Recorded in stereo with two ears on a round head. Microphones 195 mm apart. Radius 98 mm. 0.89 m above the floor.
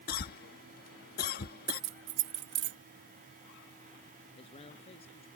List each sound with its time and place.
0.1 s a cough: 45° left (ahead or behind)
1.7 s keys jangling: 55° right (ahead or behind)
4.3 s a man speaking: 30° left (ahead or behind)